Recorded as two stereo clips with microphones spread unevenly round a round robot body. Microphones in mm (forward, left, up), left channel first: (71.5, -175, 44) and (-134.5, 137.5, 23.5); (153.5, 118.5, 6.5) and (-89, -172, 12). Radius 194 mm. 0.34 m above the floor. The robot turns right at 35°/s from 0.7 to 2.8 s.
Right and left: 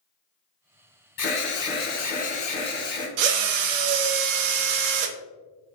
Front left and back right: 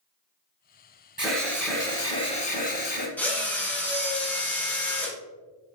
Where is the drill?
135° left, 0.6 m.